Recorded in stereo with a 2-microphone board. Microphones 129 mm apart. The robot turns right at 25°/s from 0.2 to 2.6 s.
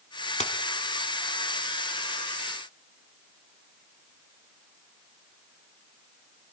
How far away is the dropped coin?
About 0.8 m.